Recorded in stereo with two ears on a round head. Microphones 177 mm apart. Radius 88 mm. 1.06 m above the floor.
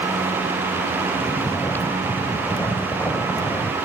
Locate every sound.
1.2 s snoring: 10° left (ahead or behind)